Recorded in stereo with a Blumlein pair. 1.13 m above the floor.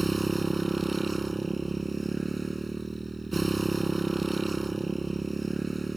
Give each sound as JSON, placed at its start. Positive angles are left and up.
{"t": 0.0, "sound": "a motorcycle", "azimuth_deg": -10}